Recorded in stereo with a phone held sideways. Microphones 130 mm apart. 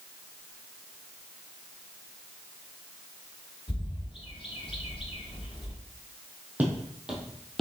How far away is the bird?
About 1.2 m.